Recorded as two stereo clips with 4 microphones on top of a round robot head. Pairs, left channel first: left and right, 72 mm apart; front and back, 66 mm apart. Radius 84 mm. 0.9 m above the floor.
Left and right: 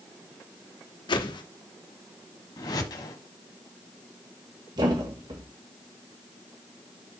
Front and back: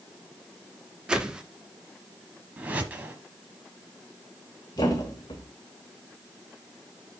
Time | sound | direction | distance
1.1 | a whoosh | 100° left | 1.1 m
2.6 | a whoosh | 115° left | 1.0 m
4.8 | a thud | 45° right | 1.3 m